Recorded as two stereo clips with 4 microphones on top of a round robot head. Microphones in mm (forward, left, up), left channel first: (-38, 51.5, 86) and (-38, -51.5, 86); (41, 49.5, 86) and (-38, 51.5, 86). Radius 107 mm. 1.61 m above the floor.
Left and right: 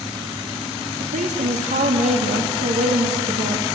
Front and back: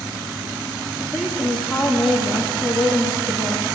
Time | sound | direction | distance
1.0 | a woman speaking | 90° right | 2.5 m